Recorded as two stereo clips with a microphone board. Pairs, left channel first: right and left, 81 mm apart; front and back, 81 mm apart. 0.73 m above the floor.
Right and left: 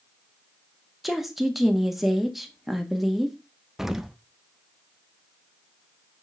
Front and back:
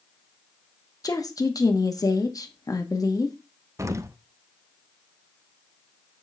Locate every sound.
1.0 s a woman speaking: 5° left, 1.1 m
3.8 s an explosion: 170° left, 0.5 m